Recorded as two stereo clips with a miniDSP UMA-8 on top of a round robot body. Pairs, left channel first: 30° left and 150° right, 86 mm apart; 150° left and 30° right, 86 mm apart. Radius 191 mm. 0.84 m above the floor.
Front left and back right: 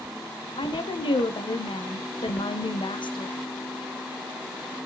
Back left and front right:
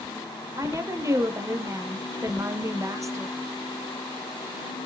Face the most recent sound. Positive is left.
turn(degrees=20)